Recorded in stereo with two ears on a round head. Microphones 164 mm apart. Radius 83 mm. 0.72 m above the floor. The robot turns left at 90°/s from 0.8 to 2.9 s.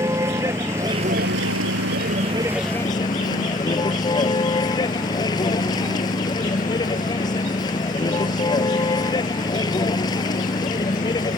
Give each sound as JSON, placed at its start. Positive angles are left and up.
{"t": 0.0, "sound": "a vehicle", "azimuth_deg": -15}